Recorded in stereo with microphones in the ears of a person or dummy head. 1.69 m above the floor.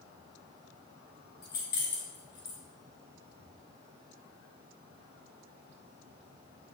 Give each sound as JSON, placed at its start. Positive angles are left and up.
{"t": 1.4, "sound": "keys jangling", "side_deg": 15, "distance_m": 0.7}